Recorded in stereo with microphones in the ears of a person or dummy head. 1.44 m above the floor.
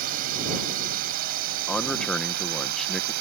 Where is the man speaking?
Centre (ahead or behind).